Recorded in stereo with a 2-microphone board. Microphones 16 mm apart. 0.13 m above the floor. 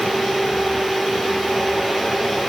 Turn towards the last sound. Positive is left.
No sound to turn to.